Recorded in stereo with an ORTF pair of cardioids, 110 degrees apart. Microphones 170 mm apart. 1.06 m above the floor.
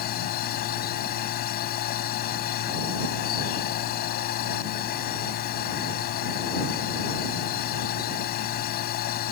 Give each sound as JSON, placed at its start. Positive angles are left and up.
{"t": 0.0, "sound": "a machine running", "azimuth_deg": 65}